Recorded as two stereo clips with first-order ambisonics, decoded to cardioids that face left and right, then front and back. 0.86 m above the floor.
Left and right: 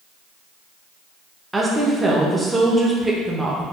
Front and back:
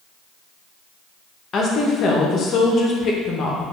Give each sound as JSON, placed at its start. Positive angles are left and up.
{"t": 1.5, "sound": "a woman speaking", "azimuth_deg": -15, "distance_m": 0.7}